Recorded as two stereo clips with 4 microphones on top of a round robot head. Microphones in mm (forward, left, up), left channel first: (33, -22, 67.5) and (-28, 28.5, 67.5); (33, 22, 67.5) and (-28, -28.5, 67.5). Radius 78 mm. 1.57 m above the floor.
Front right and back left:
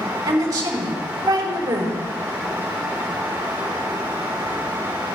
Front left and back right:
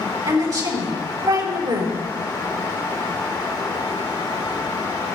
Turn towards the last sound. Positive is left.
turn(degrees=-175)